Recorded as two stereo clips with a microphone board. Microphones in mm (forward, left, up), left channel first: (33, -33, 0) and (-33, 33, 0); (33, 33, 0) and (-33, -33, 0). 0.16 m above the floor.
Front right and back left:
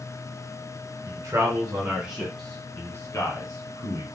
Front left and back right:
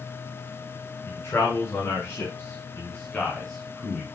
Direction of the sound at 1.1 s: 100° left.